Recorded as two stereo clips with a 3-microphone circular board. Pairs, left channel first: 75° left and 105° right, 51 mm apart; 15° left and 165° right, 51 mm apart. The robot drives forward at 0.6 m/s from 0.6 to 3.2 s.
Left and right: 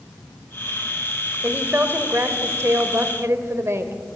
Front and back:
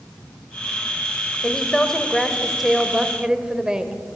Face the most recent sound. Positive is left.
turn(degrees=-95)